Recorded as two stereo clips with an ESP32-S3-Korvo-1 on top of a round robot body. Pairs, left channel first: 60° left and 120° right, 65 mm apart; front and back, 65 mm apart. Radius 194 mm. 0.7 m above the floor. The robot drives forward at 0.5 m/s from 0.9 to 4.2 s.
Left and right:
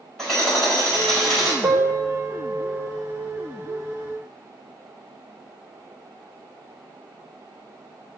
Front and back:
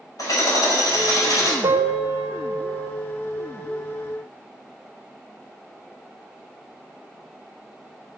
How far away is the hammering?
About 4 m.